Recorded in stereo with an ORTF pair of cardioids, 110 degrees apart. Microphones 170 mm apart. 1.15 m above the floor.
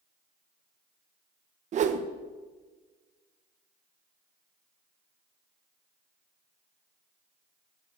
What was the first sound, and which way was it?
A whoosh, 50° right.